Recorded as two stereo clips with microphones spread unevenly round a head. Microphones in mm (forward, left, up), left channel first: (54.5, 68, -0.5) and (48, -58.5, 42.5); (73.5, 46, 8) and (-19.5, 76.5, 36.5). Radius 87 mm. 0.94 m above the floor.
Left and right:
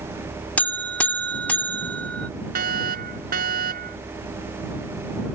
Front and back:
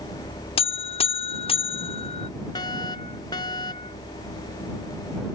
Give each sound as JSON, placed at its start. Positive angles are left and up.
{"t": 0.6, "sound": "a buzzer", "azimuth_deg": 5}
{"t": 2.5, "sound": "a fire alarm", "azimuth_deg": -85}